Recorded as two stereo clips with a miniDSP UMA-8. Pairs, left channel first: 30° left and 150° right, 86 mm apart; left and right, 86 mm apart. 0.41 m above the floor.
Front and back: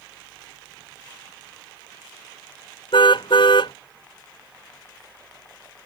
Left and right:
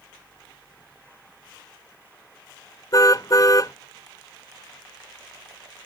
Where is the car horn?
45° left.